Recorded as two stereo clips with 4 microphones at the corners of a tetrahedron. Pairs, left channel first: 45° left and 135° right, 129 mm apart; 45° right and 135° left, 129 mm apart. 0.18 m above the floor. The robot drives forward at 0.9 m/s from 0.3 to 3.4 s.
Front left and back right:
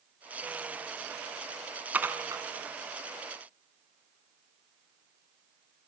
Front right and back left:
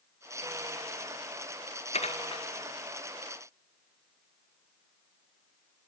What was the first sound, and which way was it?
Dishes clattering, 60° right.